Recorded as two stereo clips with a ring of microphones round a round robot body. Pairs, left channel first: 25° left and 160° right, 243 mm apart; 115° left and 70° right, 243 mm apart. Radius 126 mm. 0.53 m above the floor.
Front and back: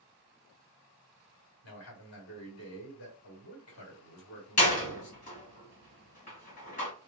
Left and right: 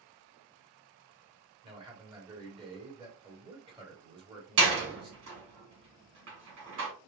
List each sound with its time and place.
1.6 s a man speaking: straight ahead, 2 m
4.6 s a door slam: 35° right, 2 m